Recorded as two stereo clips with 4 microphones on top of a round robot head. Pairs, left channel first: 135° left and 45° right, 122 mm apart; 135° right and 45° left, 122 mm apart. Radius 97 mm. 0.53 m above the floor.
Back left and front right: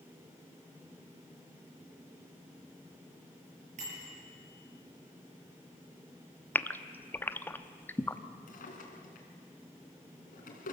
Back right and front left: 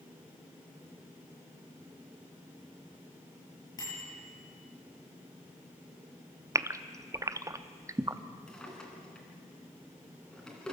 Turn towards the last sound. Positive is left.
turn(degrees=145)